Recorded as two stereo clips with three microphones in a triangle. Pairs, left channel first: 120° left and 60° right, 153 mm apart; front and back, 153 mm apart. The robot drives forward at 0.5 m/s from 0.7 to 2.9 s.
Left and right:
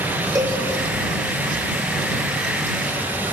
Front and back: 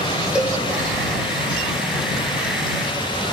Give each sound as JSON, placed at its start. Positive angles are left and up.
{"t": 0.3, "sound": "a cowbell", "azimuth_deg": -100, "distance_m": 0.6}